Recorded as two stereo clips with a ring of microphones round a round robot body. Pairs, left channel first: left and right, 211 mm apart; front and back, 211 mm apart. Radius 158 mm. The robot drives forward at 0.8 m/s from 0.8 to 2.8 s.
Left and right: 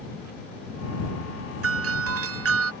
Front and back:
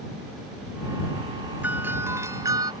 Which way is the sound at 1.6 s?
95° right.